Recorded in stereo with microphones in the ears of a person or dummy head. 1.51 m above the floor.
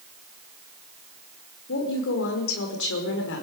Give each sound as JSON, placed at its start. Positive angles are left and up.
{"t": 1.7, "sound": "a woman speaking", "side_deg": 70, "distance_m": 5.5}